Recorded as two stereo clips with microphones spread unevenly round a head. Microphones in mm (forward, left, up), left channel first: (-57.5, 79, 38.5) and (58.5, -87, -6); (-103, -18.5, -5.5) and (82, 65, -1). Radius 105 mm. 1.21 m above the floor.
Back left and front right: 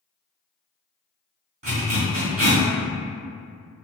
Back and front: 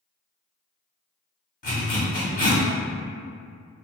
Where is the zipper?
115° right, 1.4 m.